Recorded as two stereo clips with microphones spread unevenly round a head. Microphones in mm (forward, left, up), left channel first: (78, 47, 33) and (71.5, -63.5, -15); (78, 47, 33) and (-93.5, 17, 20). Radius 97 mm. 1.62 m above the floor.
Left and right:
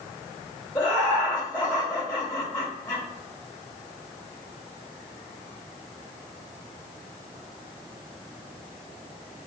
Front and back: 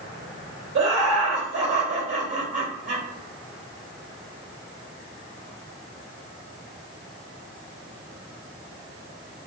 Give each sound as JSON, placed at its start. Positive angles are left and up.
{"t": 0.8, "sound": "laughter", "azimuth_deg": 170, "distance_m": 1.9}